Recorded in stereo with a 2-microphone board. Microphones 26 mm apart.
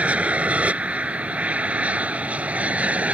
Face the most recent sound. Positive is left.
turn(degrees=-60)  # may be behind; listen again after turning